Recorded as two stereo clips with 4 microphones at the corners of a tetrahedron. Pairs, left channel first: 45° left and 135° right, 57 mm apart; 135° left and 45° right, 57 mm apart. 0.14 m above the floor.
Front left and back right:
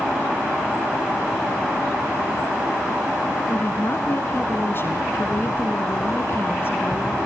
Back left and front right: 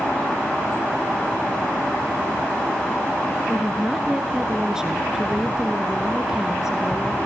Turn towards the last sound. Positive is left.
turn(degrees=30)